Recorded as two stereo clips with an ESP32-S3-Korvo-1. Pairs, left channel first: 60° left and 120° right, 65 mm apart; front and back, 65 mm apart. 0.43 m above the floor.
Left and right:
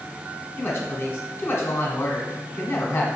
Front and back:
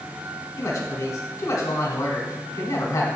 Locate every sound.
0.6 s a woman speaking: 10° left, 1.3 m